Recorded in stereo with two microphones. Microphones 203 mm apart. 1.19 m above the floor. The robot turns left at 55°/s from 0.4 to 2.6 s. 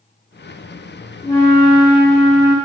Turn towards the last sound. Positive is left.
turn(degrees=-25)